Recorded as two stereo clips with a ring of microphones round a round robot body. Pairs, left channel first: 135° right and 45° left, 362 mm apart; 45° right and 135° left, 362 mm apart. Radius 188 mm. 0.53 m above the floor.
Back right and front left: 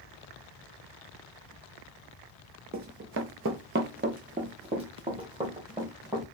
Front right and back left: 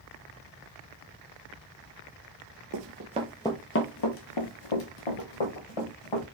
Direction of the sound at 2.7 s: 105° left.